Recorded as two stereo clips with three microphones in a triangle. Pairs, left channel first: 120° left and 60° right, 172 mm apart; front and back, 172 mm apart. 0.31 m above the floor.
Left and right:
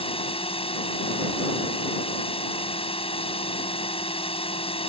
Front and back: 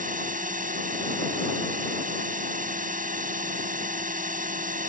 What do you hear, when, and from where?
0.0 s a drone: 165° left